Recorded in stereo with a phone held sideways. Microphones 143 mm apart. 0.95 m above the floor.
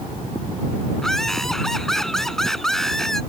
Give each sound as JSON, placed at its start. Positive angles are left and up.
{"t": 1.0, "sound": "laughter", "side_deg": 5}